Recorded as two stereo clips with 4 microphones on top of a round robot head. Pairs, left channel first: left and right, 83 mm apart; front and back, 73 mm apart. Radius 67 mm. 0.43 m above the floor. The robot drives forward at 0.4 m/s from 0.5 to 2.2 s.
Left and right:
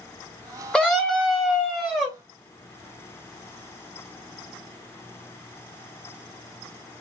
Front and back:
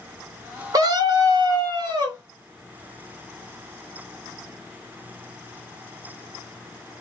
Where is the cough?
No cough in this recording.